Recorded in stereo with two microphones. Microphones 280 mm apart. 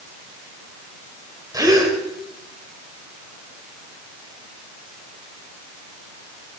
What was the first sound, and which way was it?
A gasp, 15° right (ahead or behind).